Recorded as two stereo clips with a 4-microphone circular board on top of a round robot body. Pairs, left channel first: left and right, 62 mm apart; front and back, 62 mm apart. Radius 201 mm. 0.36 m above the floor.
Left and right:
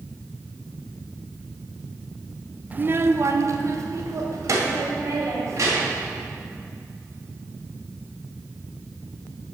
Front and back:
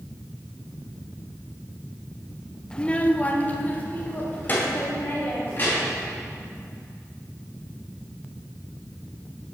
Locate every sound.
2.7 s a child speaking: 60° right, 0.6 m